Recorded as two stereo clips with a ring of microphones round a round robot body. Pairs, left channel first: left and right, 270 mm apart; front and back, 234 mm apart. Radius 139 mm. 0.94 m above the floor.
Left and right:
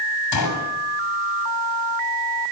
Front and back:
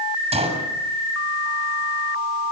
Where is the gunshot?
115° left, 7.5 m.